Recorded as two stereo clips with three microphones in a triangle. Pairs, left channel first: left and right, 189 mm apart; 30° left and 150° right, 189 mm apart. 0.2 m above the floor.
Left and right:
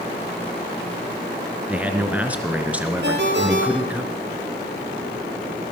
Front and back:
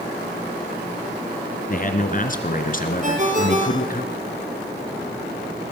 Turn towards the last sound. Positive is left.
turn(degrees=-105)